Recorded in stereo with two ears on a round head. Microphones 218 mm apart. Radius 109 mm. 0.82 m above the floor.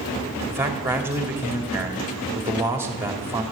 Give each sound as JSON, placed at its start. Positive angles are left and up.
{"t": 0.5, "sound": "a man speaking", "side_deg": -10, "distance_m": 2.0}